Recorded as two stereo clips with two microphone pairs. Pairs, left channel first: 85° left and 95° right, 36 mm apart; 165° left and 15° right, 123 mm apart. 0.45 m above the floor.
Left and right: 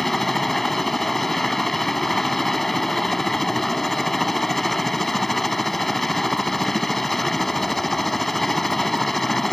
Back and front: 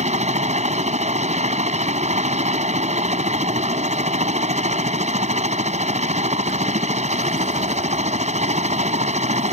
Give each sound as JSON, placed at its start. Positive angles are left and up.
{"t": 0.0, "sound": "a helicopter", "azimuth_deg": 0}